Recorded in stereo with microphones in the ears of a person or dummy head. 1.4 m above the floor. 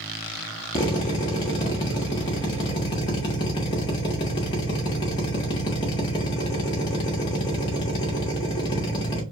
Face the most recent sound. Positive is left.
turn(degrees=30)  # may be behind; listen again after turning